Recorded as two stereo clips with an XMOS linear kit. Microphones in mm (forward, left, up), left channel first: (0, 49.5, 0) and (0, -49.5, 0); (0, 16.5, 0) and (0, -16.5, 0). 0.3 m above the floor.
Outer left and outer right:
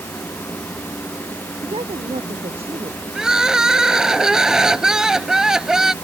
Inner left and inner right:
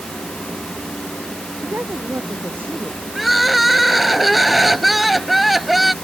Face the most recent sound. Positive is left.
turn(degrees=-5)  # may be behind; listen again after turning